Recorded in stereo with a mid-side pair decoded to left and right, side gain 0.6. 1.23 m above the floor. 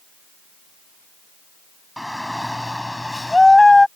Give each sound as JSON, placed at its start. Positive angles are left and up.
{"t": 2.0, "sound": "a shout", "azimuth_deg": 0}